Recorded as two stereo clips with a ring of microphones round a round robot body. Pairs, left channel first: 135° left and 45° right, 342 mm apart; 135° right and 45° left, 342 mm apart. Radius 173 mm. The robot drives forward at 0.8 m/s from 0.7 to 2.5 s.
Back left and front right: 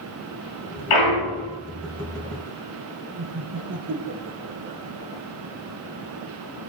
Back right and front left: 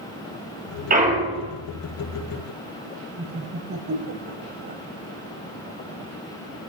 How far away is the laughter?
About 1.7 m.